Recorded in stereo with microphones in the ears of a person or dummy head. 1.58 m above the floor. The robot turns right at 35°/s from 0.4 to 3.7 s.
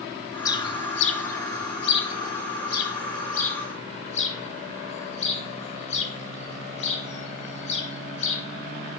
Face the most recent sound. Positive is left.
turn(degrees=40)  # may be behind; listen again after turning